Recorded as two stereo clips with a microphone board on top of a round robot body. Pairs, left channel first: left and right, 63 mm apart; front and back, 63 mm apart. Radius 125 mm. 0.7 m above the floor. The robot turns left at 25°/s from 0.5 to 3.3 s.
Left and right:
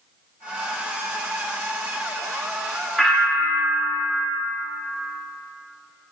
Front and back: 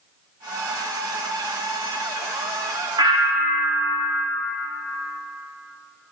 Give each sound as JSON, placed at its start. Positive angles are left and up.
{"t": 3.0, "sound": "a bell", "azimuth_deg": 180, "distance_m": 1.1}